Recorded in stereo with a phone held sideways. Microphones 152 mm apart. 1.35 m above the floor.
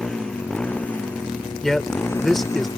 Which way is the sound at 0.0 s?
5° left (ahead or behind).